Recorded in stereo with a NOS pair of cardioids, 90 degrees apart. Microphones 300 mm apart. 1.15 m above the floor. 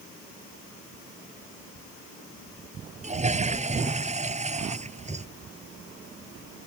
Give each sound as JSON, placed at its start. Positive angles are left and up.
{"t": 3.0, "sound": "a toilet flushing", "azimuth_deg": -25}